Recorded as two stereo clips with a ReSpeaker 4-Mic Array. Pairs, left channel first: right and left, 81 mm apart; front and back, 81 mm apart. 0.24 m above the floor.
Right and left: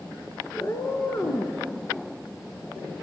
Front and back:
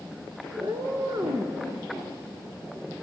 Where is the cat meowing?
140° right, 1.5 m.